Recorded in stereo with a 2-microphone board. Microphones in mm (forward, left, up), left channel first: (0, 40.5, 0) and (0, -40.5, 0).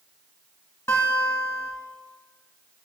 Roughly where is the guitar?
Left.